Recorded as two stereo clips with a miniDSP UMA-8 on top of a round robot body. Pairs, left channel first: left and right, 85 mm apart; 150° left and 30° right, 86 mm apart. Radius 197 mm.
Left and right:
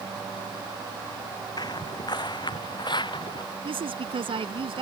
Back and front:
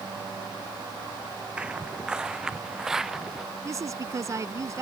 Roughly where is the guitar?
I don't hear a guitar.